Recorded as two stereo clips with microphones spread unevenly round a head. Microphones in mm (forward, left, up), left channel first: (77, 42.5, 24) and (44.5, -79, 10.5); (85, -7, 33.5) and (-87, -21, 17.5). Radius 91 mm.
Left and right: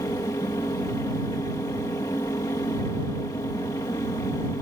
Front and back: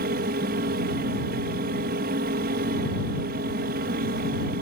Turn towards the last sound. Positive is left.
turn(degrees=145)